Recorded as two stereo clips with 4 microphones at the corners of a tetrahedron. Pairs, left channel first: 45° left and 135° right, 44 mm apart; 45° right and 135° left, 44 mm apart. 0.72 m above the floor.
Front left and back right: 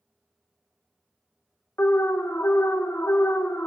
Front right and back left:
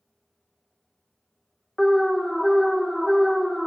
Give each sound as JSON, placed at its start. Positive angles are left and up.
{"t": 1.8, "sound": "an alarm", "azimuth_deg": 45, "distance_m": 0.6}